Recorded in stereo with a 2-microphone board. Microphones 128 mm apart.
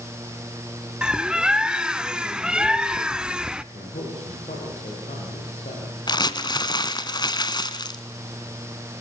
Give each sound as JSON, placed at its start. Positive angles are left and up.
{"t": 1.0, "sound": "a bird", "side_deg": -5, "distance_m": 0.6}
{"t": 3.7, "sound": "a man speaking", "side_deg": 75, "distance_m": 8.0}
{"t": 6.1, "sound": "crumpling", "side_deg": 35, "distance_m": 1.6}